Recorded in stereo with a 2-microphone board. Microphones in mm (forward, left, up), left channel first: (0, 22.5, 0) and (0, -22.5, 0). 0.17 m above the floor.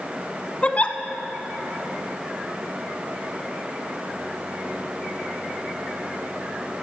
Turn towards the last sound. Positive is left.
turn(degrees=35)  # may be behind; listen again after turning